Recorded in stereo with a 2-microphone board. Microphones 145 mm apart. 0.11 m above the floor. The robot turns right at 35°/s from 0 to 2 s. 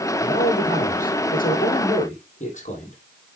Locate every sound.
0.2 s a man speaking: 55° left, 3.5 m; by 3.0 s 120° left, 3.5 m